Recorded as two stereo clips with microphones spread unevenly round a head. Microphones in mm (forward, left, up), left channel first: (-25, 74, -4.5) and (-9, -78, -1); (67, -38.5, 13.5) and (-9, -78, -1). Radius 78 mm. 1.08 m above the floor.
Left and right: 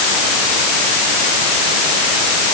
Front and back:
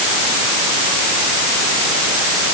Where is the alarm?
I don't hear an alarm.